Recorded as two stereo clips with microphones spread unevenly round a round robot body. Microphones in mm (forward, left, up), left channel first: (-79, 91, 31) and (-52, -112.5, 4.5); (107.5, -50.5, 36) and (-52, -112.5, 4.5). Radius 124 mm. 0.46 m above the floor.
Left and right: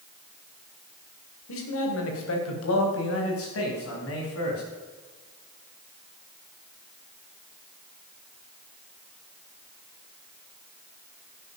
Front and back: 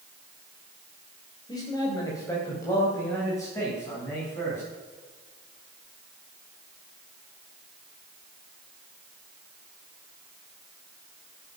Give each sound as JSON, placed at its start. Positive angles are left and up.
{"t": 1.5, "sound": "a man speaking", "azimuth_deg": 100, "distance_m": 3.0}